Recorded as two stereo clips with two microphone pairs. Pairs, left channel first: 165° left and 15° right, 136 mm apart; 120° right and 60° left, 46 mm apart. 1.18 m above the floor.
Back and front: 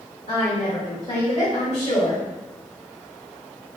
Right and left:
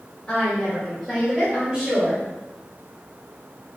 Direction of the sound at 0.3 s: 170° left.